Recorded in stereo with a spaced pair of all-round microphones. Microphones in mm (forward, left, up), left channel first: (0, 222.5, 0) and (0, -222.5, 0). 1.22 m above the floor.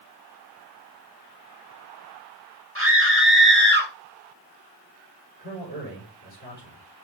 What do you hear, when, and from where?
2.8 s a scream: 30° right (ahead or behind), 3 m; by 3.9 s 20° right (ahead or behind), 1.9 m
5.4 s a man speaking: 20° left (ahead or behind), 5.5 m